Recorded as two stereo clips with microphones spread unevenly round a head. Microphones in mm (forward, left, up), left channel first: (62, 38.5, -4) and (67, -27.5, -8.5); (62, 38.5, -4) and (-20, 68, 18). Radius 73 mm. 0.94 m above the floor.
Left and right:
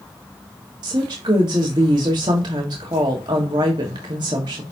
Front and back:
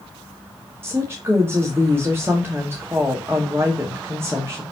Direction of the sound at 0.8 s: 120° right.